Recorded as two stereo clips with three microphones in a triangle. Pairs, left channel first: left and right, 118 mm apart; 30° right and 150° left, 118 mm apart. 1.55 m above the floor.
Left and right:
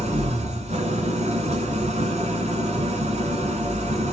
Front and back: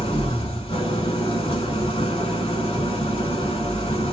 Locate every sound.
0.0 s an engine running: 65° right, 1.3 m